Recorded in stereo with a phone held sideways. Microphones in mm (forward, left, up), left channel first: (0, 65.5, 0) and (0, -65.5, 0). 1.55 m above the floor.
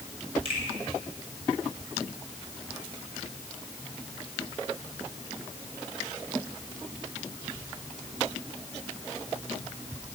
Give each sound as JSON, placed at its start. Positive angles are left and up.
{"t": 0.5, "sound": "a finger snap", "side_deg": -45, "distance_m": 7.5}